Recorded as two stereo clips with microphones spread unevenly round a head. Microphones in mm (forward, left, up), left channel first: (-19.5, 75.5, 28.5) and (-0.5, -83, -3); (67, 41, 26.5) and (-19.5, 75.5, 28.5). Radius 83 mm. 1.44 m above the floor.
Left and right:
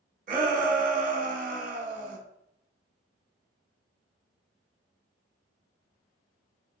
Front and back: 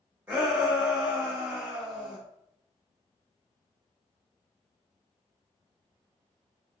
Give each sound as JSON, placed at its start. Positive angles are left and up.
{"t": 0.3, "sound": "a shout", "azimuth_deg": -125, "distance_m": 1.2}